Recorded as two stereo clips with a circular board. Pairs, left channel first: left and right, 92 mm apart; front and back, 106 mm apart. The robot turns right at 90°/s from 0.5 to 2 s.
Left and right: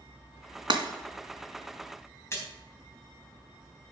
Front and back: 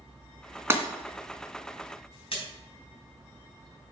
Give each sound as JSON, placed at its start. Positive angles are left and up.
{"t": 0.7, "sound": "breaking glass", "azimuth_deg": -115, "distance_m": 2.0}
{"t": 2.3, "sound": "a splash", "azimuth_deg": 30, "distance_m": 4.0}